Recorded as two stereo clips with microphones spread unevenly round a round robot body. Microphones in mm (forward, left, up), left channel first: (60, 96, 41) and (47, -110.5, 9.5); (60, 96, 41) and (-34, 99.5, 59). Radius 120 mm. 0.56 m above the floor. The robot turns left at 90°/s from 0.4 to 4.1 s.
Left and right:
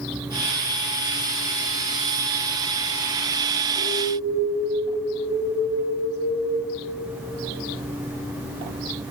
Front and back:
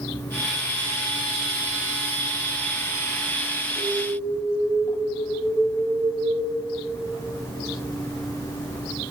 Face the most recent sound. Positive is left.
turn(degrees=-35)